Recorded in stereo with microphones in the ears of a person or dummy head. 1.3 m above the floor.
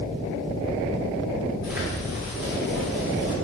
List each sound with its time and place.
1.6 s footsteps: 15° right (ahead or behind), 2.5 m; by 3.4 s 25° right (ahead or behind), 1.5 m